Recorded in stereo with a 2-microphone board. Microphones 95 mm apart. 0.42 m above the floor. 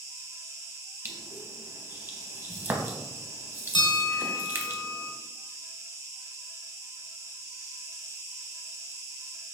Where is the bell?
55° left (ahead or behind), 0.7 m.